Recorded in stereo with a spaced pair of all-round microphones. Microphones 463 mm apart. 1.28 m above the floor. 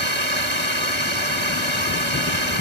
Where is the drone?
75° right (ahead or behind).